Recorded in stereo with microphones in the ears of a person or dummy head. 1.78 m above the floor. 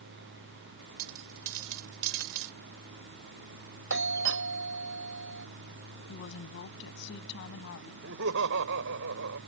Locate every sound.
1.0 s a dropped coin: 65° right (ahead or behind)
3.9 s a doorbell: 60° right (ahead or behind)
6.1 s a woman speaking: 65° left (ahead or behind)
8.0 s laughter: 65° right (ahead or behind)